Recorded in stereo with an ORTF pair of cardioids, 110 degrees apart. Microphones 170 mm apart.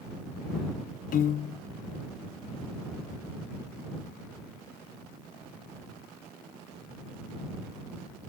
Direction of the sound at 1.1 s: 55° left.